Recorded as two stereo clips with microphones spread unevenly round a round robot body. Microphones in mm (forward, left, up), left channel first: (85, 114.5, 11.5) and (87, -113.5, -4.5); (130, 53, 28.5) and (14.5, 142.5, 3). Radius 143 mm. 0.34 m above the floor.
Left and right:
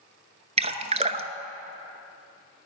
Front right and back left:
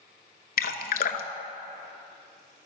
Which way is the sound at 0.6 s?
25° right.